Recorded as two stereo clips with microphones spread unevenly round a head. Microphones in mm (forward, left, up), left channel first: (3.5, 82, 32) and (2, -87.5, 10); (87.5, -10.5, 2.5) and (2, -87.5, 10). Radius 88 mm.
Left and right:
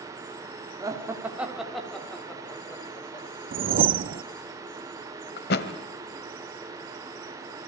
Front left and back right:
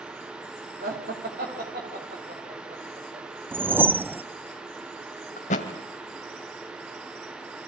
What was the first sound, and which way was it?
Laughter, 160° right.